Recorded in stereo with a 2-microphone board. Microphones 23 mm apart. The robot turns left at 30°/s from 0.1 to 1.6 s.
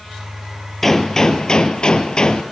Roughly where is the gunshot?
Centre.